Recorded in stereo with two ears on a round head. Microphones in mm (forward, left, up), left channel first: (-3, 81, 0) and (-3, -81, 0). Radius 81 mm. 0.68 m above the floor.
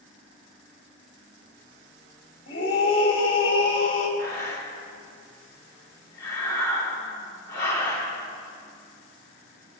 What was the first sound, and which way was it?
A scream, 35° left (ahead or behind).